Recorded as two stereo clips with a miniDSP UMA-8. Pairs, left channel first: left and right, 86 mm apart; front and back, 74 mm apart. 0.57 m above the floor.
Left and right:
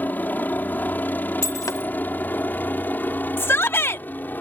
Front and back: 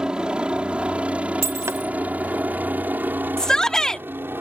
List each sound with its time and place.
0.0 s a helicopter: 120° left; by 4.4 s 145° left
1.4 s breaking glass: 135° left
3.4 s a shout: 70° left